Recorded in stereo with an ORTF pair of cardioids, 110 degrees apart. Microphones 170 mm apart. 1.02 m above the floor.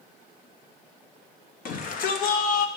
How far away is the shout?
About 1.2 m.